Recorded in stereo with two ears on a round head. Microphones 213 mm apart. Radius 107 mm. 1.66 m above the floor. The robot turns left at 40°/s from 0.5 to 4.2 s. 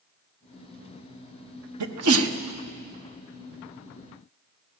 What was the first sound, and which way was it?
A sneeze, 85° right.